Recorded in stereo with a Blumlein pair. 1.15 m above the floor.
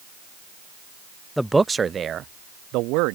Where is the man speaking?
Straight ahead; by 3.2 s 45° right.